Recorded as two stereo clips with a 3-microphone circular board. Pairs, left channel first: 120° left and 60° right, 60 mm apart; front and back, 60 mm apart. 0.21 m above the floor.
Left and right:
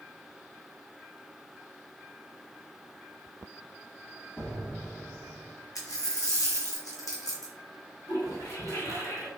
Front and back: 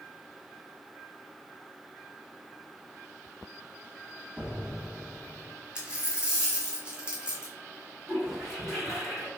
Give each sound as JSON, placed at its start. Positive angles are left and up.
{"t": 4.4, "sound": "an explosion", "azimuth_deg": 130, "distance_m": 1.3}
{"t": 5.8, "sound": "a dropped coin", "azimuth_deg": 105, "distance_m": 1.2}
{"t": 8.1, "sound": "a toilet flushing", "azimuth_deg": 105, "distance_m": 1.9}